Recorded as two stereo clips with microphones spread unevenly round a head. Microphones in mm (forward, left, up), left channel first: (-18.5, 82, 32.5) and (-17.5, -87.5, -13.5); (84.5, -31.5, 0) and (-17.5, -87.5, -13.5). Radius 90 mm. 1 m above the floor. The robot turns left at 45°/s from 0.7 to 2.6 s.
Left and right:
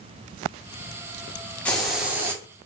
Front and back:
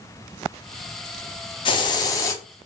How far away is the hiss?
About 0.6 m.